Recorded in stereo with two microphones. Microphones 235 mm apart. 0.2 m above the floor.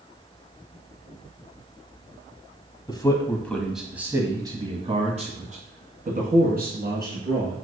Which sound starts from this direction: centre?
A man speaking, at 2.9 s.